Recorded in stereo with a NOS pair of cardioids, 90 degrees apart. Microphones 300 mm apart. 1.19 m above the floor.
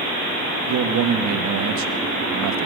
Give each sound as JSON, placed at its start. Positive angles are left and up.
{"t": 0.7, "sound": "a man speaking", "azimuth_deg": -65, "distance_m": 1.6}